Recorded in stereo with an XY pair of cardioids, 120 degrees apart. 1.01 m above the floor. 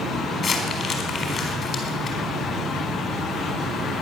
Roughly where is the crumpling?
Ahead left.